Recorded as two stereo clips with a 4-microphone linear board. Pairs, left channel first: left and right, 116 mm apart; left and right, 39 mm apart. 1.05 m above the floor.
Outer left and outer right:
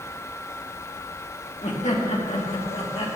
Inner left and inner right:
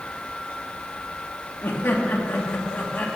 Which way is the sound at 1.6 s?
75° left (ahead or behind).